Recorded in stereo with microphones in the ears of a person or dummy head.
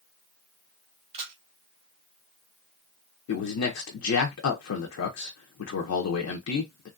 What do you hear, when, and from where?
1.1 s a camera shutter: 30° right (ahead or behind), 1.1 m
3.3 s a man speaking: 80° left, 0.6 m